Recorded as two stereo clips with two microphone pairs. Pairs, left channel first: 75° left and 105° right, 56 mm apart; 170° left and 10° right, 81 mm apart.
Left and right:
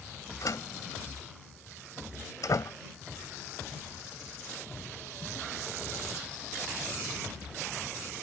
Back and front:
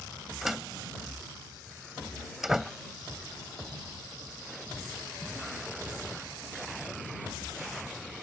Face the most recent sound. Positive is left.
turn(degrees=75)